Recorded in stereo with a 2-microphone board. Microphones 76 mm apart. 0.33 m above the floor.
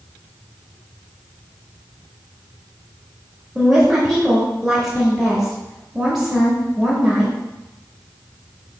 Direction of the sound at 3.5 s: 5° right (ahead or behind).